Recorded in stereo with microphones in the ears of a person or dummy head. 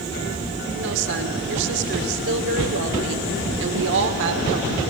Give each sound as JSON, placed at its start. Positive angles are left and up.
{"t": 0.8, "sound": "a woman speaking", "side_deg": -60, "distance_m": 1.1}